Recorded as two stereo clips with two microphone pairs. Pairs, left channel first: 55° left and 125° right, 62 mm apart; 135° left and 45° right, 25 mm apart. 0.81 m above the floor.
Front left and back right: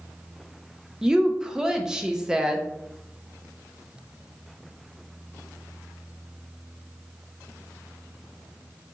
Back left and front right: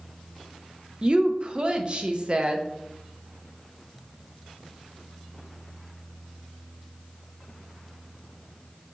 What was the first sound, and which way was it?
A woman speaking, 55° right.